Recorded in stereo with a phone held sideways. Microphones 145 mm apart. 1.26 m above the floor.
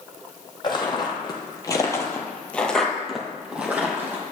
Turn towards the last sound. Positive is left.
turn(degrees=-15)  # may be behind; listen again after turning